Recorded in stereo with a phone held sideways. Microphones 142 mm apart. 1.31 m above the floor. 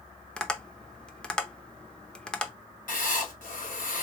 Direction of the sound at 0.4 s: 5° left (ahead or behind).